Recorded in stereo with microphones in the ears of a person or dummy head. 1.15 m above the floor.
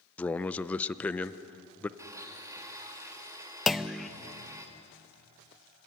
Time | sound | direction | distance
0.2 | a man speaking | 10° left (ahead or behind) | 0.5 m
2.0 | a blender | 20° right (ahead or behind) | 1.5 m
3.7 | a clunk | 5° left (ahead or behind) | 0.5 m